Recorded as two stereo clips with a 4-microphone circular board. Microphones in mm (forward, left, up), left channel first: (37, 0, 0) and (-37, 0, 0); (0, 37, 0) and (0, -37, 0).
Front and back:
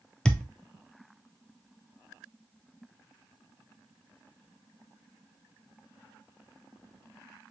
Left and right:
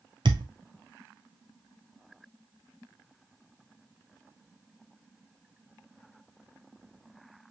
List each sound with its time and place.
0.2 s a thud: 80° right, 0.8 m